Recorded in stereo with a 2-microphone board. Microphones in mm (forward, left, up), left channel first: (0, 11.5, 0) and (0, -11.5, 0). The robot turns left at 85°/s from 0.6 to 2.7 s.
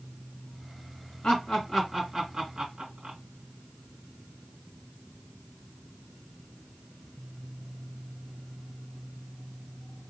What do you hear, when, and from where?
1.2 s laughter: 45° left (ahead or behind), 2.5 m; by 3.2 s 45° right (ahead or behind), 2.5 m